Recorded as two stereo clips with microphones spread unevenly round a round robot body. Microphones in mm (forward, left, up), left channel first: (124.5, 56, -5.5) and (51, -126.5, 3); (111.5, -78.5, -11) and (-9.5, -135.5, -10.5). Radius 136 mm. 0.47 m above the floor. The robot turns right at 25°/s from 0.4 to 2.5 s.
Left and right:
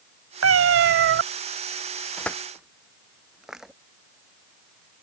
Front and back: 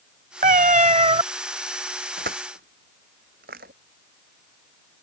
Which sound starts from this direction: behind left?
Crushing, at 2.2 s.